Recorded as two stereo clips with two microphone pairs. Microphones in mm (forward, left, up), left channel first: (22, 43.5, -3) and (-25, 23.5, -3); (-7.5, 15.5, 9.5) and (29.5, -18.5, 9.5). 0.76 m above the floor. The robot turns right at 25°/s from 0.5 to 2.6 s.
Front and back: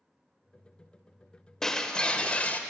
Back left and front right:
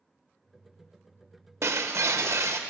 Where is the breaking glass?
55° right, 0.7 m; by 2.6 s 30° right, 0.7 m.